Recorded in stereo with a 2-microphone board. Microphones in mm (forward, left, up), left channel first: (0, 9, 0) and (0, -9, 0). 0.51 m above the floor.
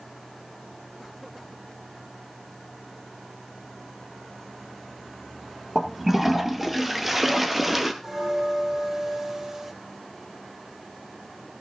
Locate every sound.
5.8 s a toilet flushing: 10° right (ahead or behind), 1.9 m
8.0 s a bell: 25° right (ahead or behind), 2.5 m